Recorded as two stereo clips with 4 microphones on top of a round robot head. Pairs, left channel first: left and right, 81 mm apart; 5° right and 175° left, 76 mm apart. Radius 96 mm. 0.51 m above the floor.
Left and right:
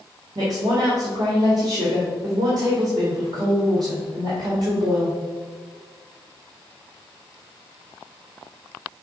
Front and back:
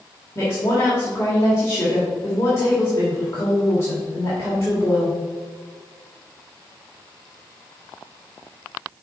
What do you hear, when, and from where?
0.3 s a woman speaking: 60° right, 1.7 m